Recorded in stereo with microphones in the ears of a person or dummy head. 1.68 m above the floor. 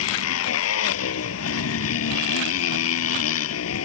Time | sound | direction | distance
0.0 | a motorcycle | 85° left | ?